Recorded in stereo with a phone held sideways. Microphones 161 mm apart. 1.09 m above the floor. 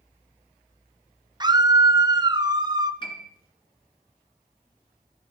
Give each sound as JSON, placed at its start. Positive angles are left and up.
{"t": 1.4, "sound": "a scream", "side_deg": -25, "distance_m": 0.7}
{"t": 3.0, "sound": "a piano", "side_deg": 30, "distance_m": 2.0}